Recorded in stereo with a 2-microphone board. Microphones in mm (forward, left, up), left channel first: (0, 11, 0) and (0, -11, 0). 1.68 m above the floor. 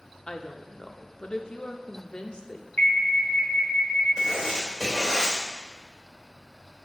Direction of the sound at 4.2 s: 20° right (ahead or behind).